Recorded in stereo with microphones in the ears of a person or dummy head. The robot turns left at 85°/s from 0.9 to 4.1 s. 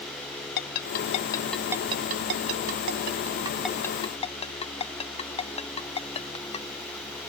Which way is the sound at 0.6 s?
60° left (ahead or behind).